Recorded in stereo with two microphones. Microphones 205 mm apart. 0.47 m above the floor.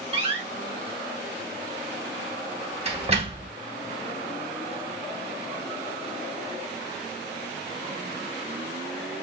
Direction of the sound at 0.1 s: 30° right (ahead or behind).